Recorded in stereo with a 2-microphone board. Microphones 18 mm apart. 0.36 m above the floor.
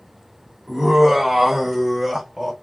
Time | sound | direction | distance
0.7 | laughter | 15° right (ahead or behind) | 1.1 m